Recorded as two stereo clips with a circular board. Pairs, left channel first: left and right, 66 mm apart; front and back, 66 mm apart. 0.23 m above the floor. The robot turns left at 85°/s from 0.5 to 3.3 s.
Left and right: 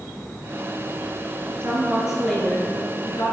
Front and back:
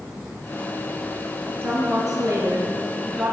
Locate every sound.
1.6 s a woman speaking: 130° right, 4.5 m; by 3.3 s 85° left, 4.5 m